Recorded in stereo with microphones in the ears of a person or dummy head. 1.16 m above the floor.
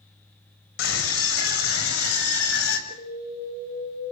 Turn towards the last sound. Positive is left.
turn(degrees=75)  # may be behind; listen again after turning